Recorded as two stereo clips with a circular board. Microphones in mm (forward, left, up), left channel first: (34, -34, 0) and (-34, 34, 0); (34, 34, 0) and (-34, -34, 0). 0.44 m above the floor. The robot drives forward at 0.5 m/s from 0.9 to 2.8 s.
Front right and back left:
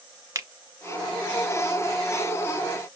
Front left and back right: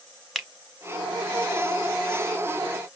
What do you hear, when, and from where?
0.3 s a finger snap: 135° left, 0.9 m